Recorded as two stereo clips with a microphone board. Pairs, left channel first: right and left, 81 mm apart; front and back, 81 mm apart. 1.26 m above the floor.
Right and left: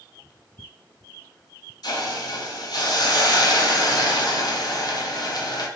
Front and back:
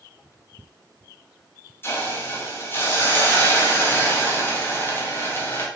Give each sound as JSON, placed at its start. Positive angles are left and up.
{"t": 1.8, "sound": "a hiss", "azimuth_deg": -60, "distance_m": 1.0}